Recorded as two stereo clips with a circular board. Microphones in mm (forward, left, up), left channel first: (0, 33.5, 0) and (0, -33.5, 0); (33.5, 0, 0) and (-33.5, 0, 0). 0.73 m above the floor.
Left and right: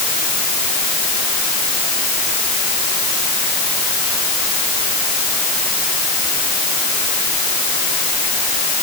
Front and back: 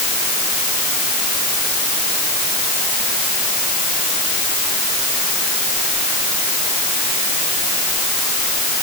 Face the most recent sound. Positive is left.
No sound to turn to.